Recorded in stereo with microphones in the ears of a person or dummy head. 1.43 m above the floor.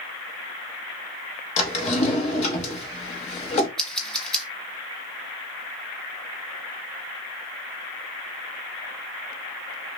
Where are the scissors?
5° left (ahead or behind), 0.7 m.